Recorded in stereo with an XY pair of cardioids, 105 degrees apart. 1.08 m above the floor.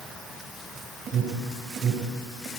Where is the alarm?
60° right, 5 m.